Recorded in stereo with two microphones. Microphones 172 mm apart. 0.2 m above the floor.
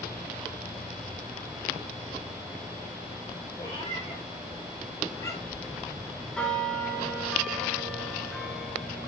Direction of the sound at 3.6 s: 30° left (ahead or behind).